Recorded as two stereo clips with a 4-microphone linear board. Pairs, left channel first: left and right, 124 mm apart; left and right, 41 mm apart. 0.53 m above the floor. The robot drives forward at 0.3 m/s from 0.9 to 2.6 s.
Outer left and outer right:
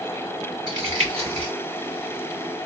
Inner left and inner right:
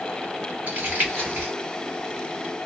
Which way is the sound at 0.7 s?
50° right (ahead or behind).